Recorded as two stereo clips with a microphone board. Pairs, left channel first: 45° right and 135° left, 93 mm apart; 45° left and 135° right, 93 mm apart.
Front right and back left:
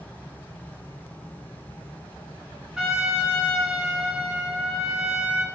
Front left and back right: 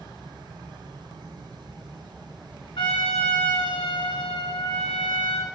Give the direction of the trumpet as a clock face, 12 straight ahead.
10 o'clock.